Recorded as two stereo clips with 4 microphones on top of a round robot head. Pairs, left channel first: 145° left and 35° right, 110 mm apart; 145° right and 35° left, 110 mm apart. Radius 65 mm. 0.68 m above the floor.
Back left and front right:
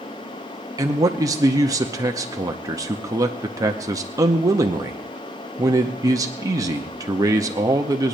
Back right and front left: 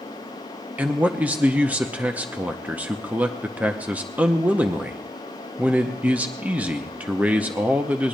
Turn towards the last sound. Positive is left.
turn(degrees=-30)